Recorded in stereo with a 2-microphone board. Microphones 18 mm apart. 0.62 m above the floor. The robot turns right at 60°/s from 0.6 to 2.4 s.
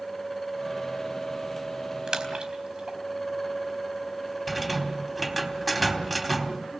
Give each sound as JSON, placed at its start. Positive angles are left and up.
{"t": 2.1, "sound": "a splash", "side_deg": -45, "distance_m": 4.0}
{"t": 4.5, "sound": "a rattle", "side_deg": -5, "distance_m": 3.5}